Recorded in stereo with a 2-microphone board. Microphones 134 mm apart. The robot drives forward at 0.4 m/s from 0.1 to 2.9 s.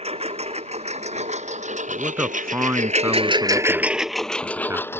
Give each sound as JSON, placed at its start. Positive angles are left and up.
{"t": 0.0, "sound": "a lawn mower", "side_deg": -50}
{"t": 1.9, "sound": "a man speaking", "side_deg": -15}